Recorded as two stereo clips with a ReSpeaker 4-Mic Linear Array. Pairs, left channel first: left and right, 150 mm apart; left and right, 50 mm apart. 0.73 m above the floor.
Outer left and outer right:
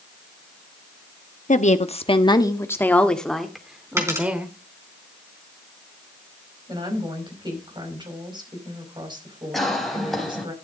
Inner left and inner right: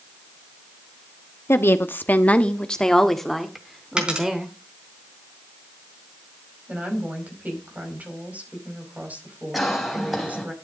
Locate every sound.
1.5 s a woman speaking: 60° left (ahead or behind), 1.1 m; by 4.5 s 10° right (ahead or behind), 2.5 m
4.0 s a dropped coin: 20° right (ahead or behind), 3.5 m
6.7 s a woman speaking: 30° right (ahead or behind), 5 m
9.5 s a cough: centre (ahead or behind), 4 m